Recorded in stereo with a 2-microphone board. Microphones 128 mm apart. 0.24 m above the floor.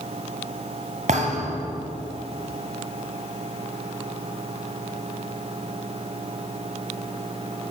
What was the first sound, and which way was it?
A thud, 75° right (ahead or behind).